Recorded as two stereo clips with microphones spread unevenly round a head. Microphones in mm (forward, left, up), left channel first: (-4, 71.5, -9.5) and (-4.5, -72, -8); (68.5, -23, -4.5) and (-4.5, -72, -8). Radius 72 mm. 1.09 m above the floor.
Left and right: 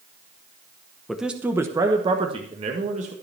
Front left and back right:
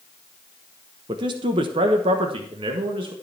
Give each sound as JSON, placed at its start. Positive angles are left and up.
{"t": 1.1, "sound": "a man speaking", "azimuth_deg": 180, "distance_m": 1.0}